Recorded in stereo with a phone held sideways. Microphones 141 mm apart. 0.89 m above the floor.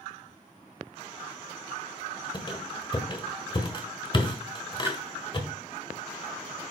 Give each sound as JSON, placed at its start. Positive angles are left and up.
{"t": 2.3, "sound": "a squeak", "side_deg": 35, "distance_m": 1.2}
{"t": 4.8, "sound": "a splash", "side_deg": -15, "distance_m": 1.0}